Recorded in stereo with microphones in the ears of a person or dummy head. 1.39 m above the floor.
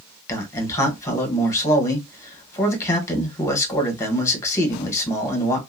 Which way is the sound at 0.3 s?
20° left (ahead or behind).